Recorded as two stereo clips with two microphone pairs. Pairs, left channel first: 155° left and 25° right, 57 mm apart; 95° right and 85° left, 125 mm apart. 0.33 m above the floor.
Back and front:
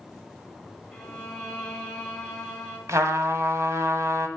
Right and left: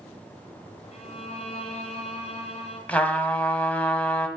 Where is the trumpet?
20° right, 0.9 m.